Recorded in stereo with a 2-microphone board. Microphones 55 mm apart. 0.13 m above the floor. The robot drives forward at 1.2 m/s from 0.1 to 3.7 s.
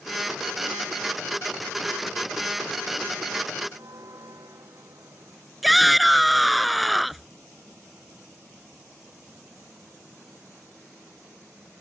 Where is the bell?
75° right (ahead or behind).